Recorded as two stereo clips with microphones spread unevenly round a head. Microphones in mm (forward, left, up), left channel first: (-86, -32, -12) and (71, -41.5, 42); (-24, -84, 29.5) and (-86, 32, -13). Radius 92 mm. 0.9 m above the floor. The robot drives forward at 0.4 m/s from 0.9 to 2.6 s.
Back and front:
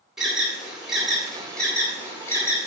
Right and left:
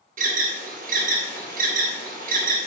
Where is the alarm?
85° left, 1.9 m; by 2.7 s 105° left, 2.0 m.